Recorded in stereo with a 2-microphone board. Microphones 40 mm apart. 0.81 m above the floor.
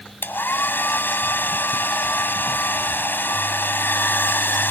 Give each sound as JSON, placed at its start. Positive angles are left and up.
{"t": 0.2, "sound": "a hair dryer", "side_deg": 55}